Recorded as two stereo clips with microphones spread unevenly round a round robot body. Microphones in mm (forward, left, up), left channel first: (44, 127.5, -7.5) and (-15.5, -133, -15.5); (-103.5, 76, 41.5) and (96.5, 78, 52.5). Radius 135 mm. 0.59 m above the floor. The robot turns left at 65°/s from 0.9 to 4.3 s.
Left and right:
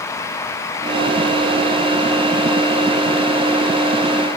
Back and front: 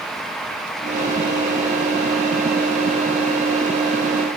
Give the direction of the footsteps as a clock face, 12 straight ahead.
I don't hear footsteps.